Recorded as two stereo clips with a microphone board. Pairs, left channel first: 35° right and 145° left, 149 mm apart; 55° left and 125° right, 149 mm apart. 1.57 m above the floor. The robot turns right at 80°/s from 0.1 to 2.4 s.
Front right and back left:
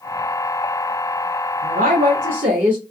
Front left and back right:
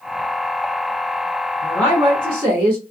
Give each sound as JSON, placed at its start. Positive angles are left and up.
{"t": 1.6, "sound": "a woman speaking", "azimuth_deg": 120, "distance_m": 0.8}